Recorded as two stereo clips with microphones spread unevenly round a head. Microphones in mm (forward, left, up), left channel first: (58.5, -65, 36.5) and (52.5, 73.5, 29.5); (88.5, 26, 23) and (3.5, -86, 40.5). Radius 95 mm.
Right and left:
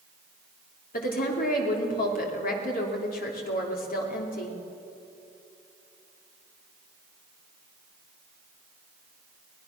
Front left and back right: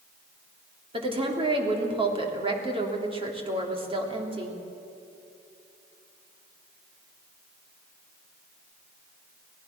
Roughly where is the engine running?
No engine running in this recording.